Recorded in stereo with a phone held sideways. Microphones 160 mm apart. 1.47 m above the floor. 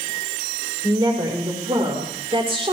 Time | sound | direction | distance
0.8 | a woman speaking | 30° right (ahead or behind) | 5.5 m